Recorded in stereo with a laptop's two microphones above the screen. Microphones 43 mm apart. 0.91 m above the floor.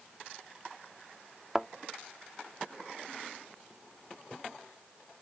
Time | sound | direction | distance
1.6 | a thud | 15° right (ahead or behind) | ?